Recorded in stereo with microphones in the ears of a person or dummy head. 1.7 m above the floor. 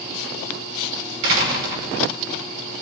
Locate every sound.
1.2 s a door slam: 70° right (ahead or behind), 5 m